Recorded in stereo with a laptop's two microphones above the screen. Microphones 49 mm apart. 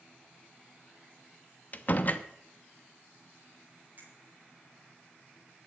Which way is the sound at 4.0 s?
40° right (ahead or behind).